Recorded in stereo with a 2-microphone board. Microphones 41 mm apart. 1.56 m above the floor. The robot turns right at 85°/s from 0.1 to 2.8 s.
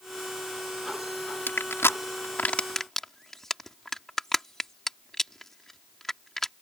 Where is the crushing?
55° left (ahead or behind); by 6.5 s 10° left (ahead or behind).